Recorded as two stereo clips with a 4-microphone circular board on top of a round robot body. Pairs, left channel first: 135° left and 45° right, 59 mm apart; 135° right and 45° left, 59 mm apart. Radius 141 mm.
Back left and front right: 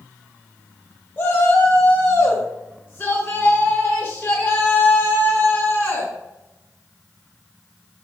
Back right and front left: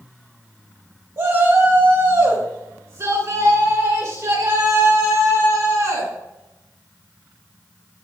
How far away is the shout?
About 2.5 m.